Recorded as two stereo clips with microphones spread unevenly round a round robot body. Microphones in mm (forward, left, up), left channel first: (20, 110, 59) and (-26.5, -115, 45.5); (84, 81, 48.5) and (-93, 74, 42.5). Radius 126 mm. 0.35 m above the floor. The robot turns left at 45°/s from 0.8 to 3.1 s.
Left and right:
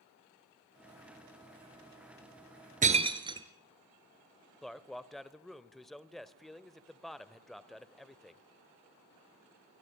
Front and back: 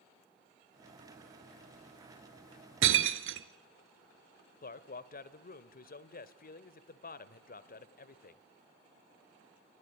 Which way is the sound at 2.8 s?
160° right.